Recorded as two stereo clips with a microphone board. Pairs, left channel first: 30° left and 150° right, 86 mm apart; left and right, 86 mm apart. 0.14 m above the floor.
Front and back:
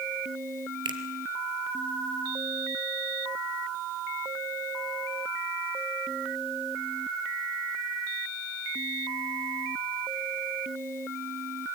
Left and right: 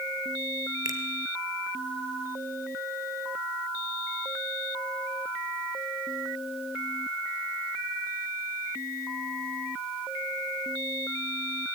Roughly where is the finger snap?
Behind right.